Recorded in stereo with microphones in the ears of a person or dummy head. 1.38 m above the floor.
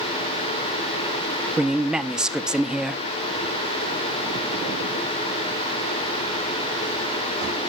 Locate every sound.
1.6 s a man speaking: centre (ahead or behind), 0.6 m